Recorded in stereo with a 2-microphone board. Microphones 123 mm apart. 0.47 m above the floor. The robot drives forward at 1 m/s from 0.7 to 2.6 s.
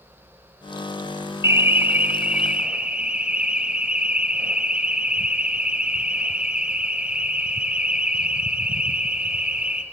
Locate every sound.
1.4 s an alarm: 20° right (ahead or behind), 0.5 m; by 9.8 s 10° right (ahead or behind), 1.4 m